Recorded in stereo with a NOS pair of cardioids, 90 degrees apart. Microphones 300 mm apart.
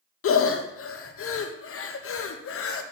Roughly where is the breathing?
Ahead left.